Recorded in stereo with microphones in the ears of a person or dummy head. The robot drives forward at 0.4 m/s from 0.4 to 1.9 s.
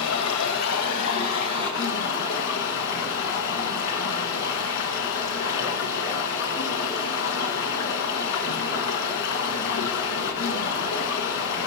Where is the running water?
75° left (ahead or behind), 1.4 m; by 11.7 s 55° left (ahead or behind), 1.7 m.